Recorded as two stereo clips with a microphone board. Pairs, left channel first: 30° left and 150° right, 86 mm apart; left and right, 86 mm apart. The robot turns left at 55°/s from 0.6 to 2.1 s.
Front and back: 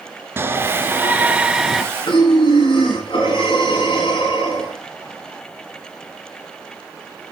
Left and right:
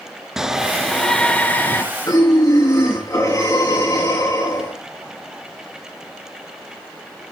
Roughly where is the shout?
Behind.